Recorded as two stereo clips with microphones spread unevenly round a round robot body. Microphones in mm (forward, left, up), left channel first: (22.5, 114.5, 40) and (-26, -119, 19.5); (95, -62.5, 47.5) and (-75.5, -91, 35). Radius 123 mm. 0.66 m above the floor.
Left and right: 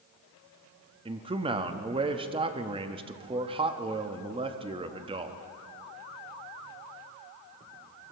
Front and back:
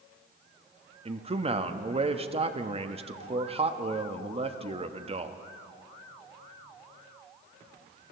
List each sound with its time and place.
1.1 s a man speaking: 150° right, 0.9 m